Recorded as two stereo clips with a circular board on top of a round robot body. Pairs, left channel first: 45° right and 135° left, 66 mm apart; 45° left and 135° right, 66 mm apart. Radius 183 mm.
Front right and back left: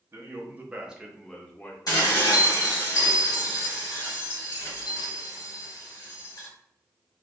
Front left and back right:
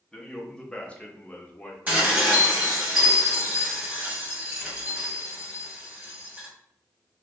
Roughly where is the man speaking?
Behind left.